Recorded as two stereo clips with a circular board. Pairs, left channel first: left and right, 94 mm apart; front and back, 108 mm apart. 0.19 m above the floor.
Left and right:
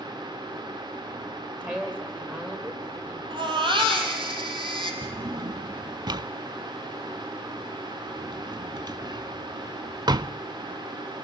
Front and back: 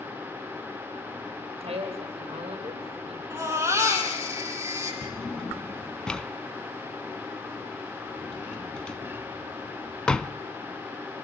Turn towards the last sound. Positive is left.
turn(degrees=-80)